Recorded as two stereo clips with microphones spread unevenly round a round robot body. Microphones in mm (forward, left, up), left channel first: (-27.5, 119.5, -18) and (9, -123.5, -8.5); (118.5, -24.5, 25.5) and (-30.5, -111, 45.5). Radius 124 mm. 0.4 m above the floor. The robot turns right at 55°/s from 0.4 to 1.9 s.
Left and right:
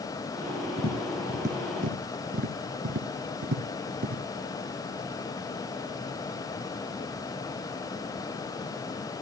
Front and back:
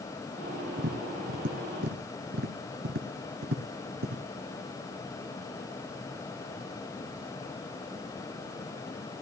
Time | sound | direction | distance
0.8 | tapping | 165° left | 1.9 m